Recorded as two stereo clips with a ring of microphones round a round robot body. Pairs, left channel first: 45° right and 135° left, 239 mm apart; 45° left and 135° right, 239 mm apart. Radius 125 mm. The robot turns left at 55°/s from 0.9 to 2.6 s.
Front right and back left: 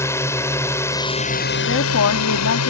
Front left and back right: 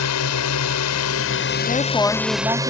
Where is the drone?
35° left; by 2.7 s 60° right.